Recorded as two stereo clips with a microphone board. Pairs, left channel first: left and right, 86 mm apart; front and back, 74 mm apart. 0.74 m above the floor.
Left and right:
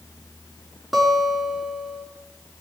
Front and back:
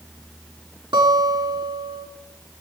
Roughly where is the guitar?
Behind.